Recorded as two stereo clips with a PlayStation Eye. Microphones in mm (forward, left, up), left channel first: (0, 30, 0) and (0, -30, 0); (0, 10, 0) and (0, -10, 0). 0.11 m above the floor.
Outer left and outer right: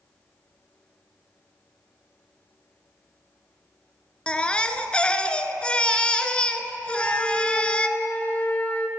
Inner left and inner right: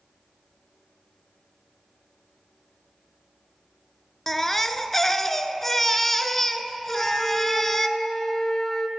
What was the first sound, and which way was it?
A baby crying, 20° left (ahead or behind).